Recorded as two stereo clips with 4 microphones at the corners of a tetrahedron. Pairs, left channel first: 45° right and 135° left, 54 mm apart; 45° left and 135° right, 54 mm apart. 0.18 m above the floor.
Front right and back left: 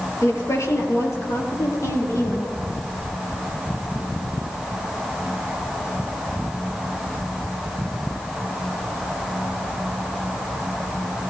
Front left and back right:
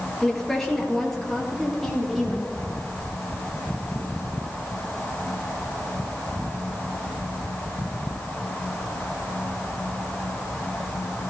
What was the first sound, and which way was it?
A woman speaking, 40° right.